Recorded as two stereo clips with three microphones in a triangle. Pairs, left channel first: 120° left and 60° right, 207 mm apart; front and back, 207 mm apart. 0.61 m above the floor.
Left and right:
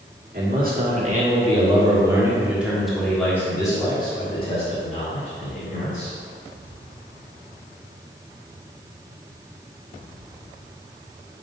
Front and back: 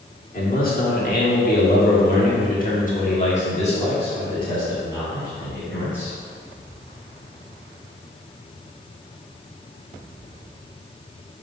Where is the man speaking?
35° right, 1.8 m; by 6.1 s 80° left, 2.5 m.